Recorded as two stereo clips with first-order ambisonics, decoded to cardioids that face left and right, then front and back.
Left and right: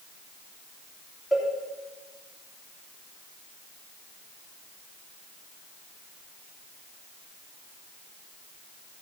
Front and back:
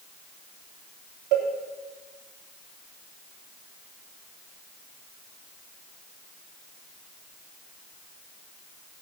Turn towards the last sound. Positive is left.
turn(degrees=175)